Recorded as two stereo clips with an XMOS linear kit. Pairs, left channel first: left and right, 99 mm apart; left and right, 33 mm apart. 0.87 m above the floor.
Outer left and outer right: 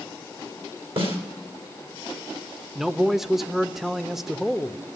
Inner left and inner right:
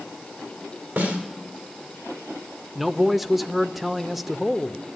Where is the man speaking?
Centre (ahead or behind), 0.7 m.